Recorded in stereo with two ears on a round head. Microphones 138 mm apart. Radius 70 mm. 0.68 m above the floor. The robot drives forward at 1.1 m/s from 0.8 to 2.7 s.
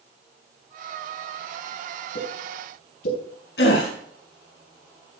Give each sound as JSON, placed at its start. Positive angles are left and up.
{"t": 2.1, "sound": "a pop", "side_deg": 80, "distance_m": 6.5}
{"t": 3.6, "sound": "a gasp", "side_deg": 85, "distance_m": 4.0}